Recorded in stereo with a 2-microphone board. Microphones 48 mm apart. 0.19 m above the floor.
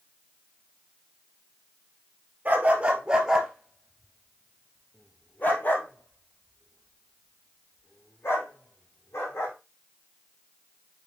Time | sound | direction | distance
2.5 | a dog barking | 35° right (ahead or behind) | 1.6 m